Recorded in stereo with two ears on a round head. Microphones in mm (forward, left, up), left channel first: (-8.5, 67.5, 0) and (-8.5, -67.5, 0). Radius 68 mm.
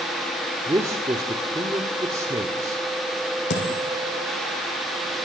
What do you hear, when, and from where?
0.7 s a man speaking: 20° right (ahead or behind), 1.6 m
3.5 s a dropped coin: 80° left, 5.5 m